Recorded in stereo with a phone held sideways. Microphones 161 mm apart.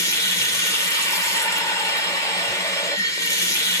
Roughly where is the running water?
Centre.